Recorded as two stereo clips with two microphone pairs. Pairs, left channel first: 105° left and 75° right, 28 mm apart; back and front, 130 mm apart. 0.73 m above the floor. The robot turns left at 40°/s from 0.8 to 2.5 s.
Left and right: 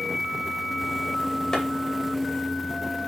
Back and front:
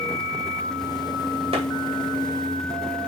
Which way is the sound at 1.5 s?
40° left.